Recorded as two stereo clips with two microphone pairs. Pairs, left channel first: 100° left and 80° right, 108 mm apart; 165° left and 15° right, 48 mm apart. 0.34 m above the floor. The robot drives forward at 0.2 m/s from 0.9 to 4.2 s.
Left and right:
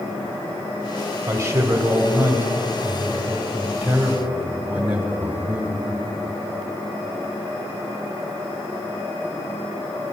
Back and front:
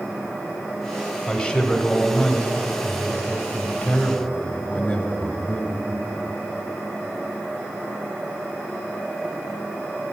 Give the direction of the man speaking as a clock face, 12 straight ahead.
4 o'clock.